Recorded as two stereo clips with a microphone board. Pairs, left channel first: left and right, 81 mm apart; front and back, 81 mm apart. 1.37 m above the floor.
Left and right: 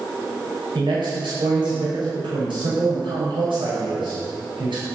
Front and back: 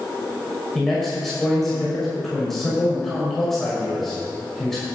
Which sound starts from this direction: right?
A man speaking, at 0.8 s.